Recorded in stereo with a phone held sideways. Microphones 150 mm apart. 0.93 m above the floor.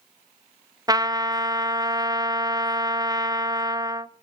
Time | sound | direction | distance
0.9 | a trumpet | 25° right (ahead or behind) | 0.5 m